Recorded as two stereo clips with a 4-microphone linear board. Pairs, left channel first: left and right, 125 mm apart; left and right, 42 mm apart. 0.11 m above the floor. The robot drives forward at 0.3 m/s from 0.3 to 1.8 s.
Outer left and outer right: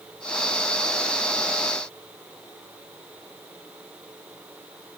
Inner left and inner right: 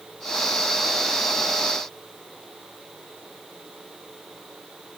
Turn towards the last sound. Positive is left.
No sound to turn to.